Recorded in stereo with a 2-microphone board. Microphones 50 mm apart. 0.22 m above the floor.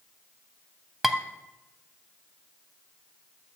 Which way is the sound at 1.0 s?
5° right (ahead or behind).